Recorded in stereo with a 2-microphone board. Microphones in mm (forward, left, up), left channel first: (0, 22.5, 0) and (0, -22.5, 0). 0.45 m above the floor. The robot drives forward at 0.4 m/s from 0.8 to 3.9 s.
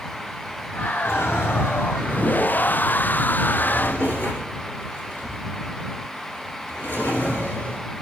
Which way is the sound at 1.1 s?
75° left (ahead or behind).